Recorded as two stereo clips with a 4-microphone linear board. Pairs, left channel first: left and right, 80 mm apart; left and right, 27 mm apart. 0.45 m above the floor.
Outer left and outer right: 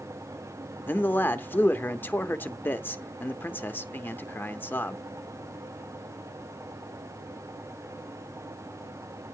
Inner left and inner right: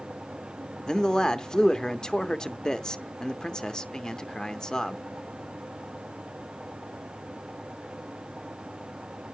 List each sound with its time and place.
0.9 s a man speaking: 25° left (ahead or behind), 0.8 m